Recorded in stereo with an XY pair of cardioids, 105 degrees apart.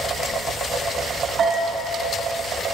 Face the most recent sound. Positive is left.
turn(degrees=-50)